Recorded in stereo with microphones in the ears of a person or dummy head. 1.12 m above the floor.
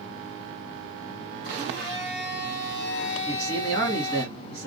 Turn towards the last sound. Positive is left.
turn(degrees=25)  # may be behind; listen again after turning